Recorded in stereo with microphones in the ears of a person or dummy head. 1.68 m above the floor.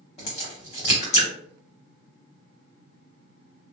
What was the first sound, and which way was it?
A crack, 35° left (ahead or behind).